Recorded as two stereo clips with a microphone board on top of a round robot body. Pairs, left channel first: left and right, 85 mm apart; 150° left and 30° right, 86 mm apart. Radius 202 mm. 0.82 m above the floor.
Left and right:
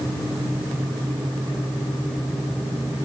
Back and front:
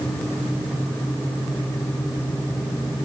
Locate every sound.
Only background noise.